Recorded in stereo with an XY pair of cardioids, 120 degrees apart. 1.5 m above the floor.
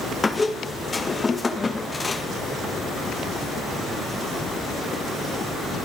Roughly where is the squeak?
Ahead left.